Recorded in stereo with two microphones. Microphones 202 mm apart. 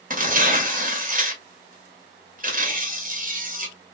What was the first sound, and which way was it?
Tearing paper, 45° right (ahead or behind).